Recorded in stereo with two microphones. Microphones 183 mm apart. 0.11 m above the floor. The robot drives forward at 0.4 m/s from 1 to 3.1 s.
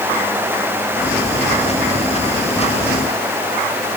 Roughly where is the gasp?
I don't hear a gasp.